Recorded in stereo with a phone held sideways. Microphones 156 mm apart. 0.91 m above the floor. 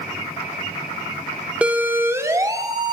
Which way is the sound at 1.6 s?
10° right (ahead or behind).